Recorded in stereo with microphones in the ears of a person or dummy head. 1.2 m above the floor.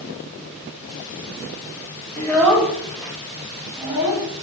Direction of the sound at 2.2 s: 15° left (ahead or behind).